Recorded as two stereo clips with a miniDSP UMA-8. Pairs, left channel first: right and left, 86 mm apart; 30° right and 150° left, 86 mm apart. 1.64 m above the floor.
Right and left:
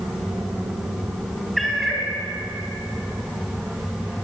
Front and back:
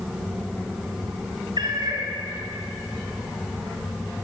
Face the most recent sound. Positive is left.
turn(degrees=180)